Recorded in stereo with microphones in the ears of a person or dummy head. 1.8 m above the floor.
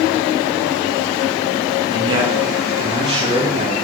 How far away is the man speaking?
About 4 m.